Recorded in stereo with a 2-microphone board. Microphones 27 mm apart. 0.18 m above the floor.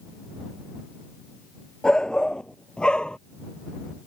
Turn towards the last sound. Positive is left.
turn(degrees=30)  # may be behind; listen again after turning